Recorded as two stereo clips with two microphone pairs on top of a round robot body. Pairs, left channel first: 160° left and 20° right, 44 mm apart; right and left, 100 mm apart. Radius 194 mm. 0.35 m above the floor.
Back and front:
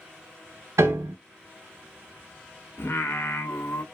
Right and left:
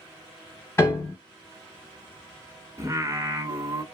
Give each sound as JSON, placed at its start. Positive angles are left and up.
{"t": 0.8, "sound": "a piano", "azimuth_deg": -25, "distance_m": 0.6}
{"t": 2.8, "sound": "singing", "azimuth_deg": 135, "distance_m": 0.7}